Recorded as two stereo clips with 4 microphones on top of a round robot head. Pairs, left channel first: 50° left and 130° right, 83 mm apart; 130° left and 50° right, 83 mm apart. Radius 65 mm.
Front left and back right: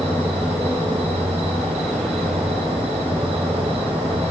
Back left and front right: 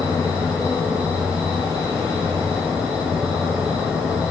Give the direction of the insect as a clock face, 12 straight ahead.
4 o'clock.